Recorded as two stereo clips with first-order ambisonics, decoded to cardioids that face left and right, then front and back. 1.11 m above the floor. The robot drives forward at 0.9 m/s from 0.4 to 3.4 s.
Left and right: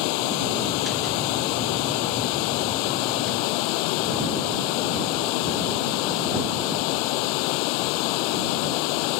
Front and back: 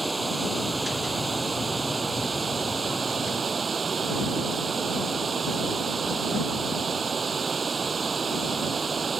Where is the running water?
100° left; by 9.2 s 105° left.